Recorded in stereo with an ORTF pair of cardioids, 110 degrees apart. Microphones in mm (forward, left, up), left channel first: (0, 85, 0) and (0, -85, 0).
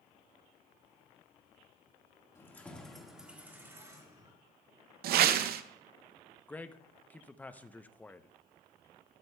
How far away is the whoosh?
About 0.6 m.